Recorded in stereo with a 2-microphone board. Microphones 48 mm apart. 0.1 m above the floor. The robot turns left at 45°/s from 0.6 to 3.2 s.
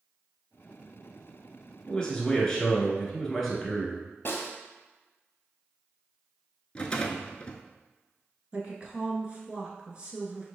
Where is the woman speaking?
25° right (ahead or behind), 1.2 m.